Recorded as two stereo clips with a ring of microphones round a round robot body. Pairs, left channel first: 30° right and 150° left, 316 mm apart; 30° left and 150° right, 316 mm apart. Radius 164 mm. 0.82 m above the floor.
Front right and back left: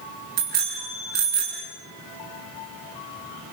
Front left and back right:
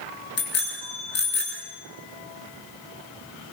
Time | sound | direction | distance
0.4 | a bicycle bell | 90° left | 7.5 m